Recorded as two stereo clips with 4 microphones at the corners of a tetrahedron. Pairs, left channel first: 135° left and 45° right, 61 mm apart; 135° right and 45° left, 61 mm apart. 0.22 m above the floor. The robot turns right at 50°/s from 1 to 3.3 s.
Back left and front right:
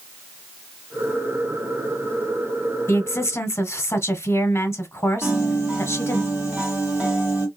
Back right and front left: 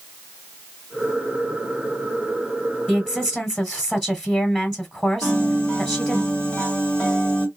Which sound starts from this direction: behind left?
A woman speaking, at 2.9 s.